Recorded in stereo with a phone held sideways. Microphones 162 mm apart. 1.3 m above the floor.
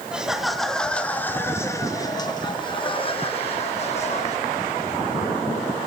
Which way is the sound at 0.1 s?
5° right (ahead or behind).